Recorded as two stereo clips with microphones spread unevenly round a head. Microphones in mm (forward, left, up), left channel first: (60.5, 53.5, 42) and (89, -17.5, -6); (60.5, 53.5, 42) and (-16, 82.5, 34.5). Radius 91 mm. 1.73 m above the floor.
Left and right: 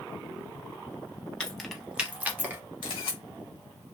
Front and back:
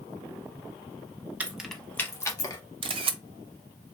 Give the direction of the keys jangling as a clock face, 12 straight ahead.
9 o'clock.